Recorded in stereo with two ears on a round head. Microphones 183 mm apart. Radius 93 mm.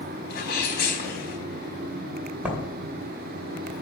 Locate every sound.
0.3 s a sneeze: 50° left (ahead or behind), 4.5 m
2.5 s writing: 5° right (ahead or behind), 2.5 m